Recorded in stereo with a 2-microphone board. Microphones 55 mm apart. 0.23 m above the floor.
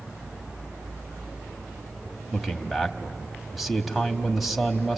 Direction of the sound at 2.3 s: Centre (ahead or behind).